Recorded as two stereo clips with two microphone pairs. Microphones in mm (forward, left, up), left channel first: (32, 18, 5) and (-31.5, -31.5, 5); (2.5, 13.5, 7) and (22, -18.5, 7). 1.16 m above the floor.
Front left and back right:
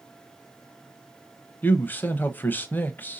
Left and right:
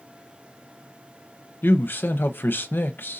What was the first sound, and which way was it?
A man speaking, 105° left.